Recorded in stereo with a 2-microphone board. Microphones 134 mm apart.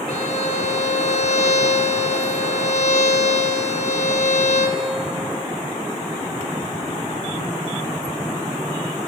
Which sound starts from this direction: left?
A violin, at 0.1 s.